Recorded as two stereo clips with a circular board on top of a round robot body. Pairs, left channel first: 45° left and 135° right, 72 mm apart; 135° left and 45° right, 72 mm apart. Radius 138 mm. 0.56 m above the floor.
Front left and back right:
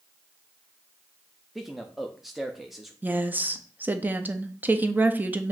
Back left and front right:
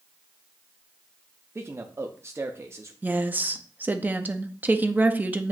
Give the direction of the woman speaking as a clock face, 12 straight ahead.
3 o'clock.